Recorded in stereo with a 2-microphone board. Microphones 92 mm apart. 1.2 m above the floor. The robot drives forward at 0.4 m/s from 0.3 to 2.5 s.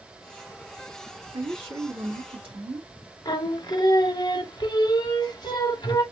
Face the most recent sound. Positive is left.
turn(degrees=50)  # may be behind; listen again after turning